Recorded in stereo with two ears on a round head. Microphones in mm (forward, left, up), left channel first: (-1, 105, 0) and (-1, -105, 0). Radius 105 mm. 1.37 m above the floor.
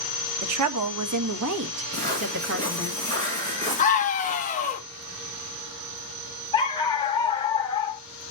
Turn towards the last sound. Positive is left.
turn(degrees=20)  # may be behind; listen again after turning